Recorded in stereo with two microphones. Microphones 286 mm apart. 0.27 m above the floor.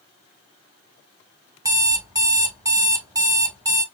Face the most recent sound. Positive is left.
turn(degrees=-10)  # may be behind; listen again after turning